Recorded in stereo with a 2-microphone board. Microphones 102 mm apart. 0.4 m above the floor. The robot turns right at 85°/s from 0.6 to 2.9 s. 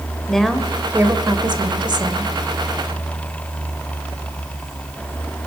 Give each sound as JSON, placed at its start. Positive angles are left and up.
{"t": 0.3, "sound": "a woman speaking", "azimuth_deg": 175, "distance_m": 1.5}